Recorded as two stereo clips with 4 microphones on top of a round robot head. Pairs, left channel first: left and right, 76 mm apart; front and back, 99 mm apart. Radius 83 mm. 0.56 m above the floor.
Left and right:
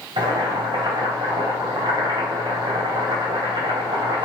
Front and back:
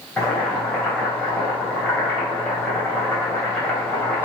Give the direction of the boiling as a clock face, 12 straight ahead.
3 o'clock.